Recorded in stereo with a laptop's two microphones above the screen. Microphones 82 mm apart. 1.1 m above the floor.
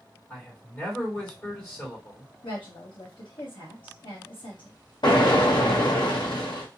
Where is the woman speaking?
70° left (ahead or behind), 1.0 m.